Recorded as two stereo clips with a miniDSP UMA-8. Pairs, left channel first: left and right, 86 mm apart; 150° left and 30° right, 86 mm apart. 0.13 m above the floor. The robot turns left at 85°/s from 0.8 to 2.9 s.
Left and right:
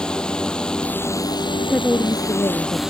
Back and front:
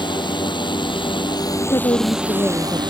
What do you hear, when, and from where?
0.0 s a drone: 170° left; by 2.9 s 10° right
1.6 s a woman speaking: 175° right; by 2.8 s 85° left